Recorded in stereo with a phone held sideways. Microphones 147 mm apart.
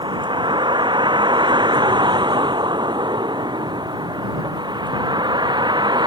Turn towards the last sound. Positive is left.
turn(degrees=-30)  # may be behind; listen again after turning